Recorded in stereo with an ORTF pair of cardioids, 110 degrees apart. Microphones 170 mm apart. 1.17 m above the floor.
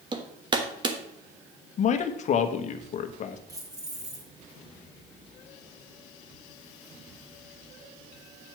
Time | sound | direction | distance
0.1 | hammering | 30° right | 1.2 m
1.8 | a man speaking | 50° left | 1.1 m
3.5 | keys jangling | 20° right | 2.5 m